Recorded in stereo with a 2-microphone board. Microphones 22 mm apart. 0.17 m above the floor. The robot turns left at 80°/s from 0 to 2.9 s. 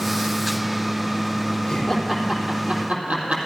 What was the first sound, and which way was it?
Laughter, 25° left (ahead or behind).